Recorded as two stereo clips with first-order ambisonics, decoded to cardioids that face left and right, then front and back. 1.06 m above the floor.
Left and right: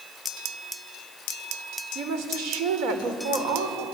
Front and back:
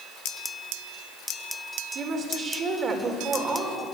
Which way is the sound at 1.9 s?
120° right.